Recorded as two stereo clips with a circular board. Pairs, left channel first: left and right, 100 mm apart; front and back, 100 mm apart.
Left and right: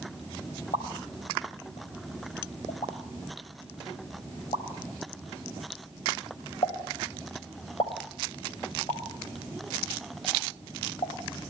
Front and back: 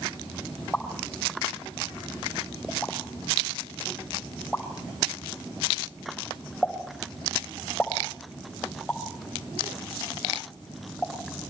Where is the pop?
90° left, 5 m.